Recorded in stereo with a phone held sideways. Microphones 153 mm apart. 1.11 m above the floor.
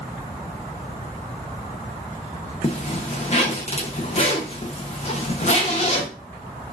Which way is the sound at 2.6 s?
45° left (ahead or behind).